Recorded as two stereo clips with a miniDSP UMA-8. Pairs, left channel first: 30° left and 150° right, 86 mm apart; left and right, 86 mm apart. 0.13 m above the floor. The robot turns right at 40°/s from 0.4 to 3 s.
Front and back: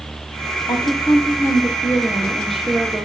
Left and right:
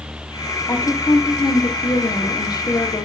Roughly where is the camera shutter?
No camera shutter in this recording.